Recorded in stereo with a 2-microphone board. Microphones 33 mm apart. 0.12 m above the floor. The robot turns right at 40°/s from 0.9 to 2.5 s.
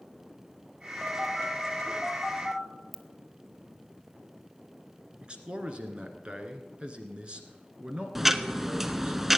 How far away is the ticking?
About 0.5 m.